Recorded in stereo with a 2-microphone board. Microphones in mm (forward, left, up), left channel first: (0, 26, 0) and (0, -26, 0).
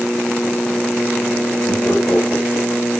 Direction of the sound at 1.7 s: 50° left (ahead or behind).